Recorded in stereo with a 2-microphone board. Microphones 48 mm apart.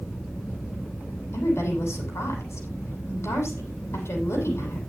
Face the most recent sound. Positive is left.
turn(degrees=65)  # may be behind; listen again after turning